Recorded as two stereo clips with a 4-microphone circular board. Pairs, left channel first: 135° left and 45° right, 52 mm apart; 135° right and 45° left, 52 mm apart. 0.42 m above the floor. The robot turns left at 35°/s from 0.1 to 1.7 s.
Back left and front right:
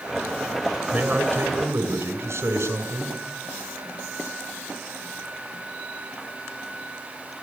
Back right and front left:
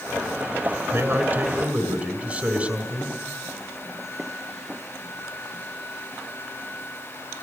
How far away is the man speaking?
About 6 m.